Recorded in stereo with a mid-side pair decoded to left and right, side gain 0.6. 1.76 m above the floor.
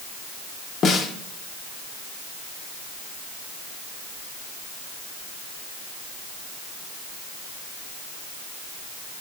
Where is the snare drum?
40° left, 1.9 m.